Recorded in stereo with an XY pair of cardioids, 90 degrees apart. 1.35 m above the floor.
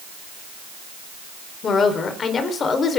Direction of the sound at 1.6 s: 55° left.